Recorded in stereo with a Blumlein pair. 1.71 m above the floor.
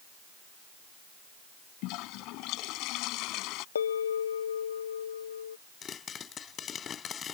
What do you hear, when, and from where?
1.8 s a toilet flushing: 40° left
3.8 s a bell: 65° left
5.8 s a pop: 25° left